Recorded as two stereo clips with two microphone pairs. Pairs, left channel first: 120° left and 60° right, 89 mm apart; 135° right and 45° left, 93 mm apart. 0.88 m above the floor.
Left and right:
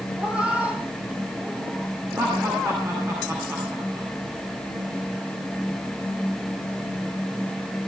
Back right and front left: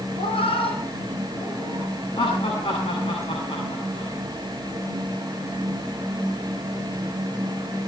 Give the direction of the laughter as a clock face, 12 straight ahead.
4 o'clock.